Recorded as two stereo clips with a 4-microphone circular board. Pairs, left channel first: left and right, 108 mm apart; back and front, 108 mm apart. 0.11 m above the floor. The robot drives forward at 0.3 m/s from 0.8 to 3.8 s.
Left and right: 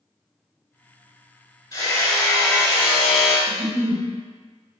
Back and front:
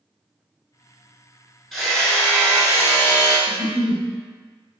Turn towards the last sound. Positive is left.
turn(degrees=-125)